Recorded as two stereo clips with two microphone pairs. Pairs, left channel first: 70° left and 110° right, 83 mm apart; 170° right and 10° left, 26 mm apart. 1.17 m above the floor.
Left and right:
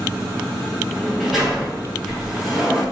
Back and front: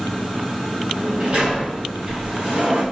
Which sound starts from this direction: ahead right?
A sliding door, at 0.9 s.